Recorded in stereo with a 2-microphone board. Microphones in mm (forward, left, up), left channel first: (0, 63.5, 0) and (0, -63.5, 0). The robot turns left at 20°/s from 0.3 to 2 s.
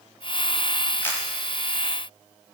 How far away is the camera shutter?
About 6.5 m.